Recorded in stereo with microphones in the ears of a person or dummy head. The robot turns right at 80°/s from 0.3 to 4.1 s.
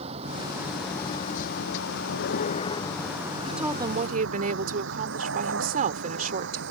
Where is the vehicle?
40° right (ahead or behind); by 6.7 s 65° right (ahead or behind).